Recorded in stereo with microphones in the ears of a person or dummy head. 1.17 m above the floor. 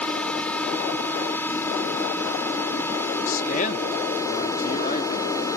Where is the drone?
Centre (ahead or behind); by 5.6 s 10° left (ahead or behind).